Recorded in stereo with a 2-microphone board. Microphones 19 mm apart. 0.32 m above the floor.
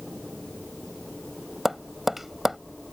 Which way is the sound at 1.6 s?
10° right (ahead or behind).